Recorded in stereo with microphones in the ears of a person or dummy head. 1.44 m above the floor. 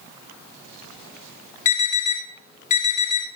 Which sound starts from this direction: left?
An alarm, at 1.6 s.